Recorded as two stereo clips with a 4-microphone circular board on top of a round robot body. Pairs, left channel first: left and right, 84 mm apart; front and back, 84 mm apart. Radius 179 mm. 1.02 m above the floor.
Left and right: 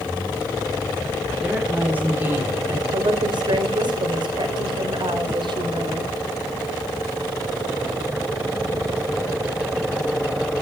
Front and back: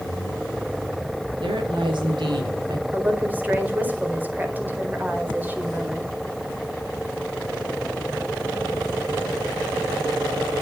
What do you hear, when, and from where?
1.4 s a woman speaking: 165° right, 3.5 m; by 2.8 s 150° right, 3.5 m
2.9 s a woman speaking: 110° right, 4 m